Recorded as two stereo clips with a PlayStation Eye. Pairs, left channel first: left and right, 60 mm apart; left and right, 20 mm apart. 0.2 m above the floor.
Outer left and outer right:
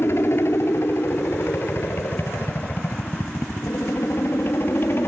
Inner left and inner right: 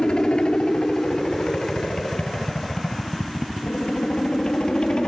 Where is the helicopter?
45° left (ahead or behind); by 5.1 s 40° left (ahead or behind).